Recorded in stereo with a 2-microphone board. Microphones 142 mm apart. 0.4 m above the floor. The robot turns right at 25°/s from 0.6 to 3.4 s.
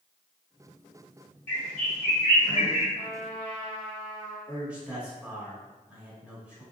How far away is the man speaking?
About 1.2 m.